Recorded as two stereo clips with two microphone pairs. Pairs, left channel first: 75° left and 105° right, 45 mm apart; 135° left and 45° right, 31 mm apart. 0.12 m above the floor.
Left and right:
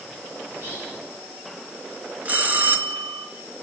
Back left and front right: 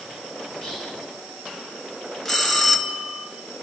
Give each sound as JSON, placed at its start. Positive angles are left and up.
{"t": 0.5, "sound": "whispering", "azimuth_deg": -145, "distance_m": 7.5}
{"t": 2.2, "sound": "a bell", "azimuth_deg": -145, "distance_m": 1.7}